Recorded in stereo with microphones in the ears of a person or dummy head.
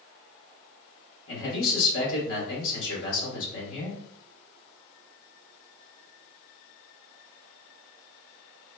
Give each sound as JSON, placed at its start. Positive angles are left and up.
{"t": 1.3, "sound": "a man speaking", "side_deg": 75, "distance_m": 1.9}